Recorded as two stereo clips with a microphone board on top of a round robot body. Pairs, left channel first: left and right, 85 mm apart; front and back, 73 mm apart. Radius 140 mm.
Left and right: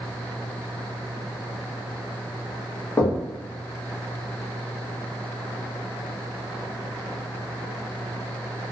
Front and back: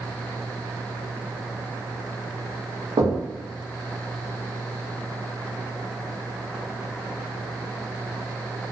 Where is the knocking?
155° left, 0.9 m.